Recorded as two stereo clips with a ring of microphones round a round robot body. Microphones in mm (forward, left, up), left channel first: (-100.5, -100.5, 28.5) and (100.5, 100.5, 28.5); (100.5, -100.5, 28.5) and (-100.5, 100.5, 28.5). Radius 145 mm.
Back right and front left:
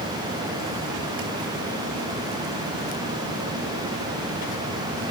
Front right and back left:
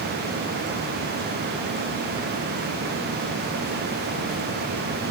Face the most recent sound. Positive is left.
No sound to turn to.